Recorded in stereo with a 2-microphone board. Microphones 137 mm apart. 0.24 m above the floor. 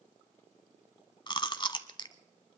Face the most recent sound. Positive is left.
turn(degrees=35)  # may be behind; listen again after turning